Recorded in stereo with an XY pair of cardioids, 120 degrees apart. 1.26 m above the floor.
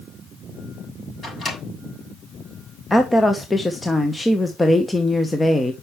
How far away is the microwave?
About 5.5 m.